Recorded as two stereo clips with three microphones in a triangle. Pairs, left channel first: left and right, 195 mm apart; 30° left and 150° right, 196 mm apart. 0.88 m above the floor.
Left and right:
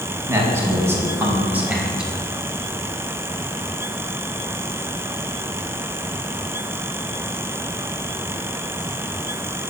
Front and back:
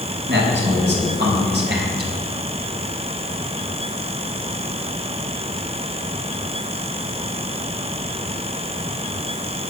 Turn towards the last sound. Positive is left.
turn(degrees=-175)